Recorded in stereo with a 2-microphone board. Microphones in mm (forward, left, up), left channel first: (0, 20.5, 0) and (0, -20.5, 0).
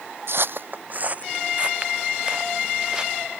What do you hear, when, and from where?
0.3 s footsteps: 60° right (ahead or behind); by 3.1 s 15° right (ahead or behind)